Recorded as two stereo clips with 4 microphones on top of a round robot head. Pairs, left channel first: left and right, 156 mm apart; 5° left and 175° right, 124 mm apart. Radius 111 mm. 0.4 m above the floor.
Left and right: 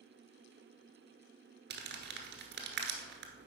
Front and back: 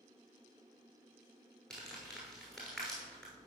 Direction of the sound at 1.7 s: 80° right.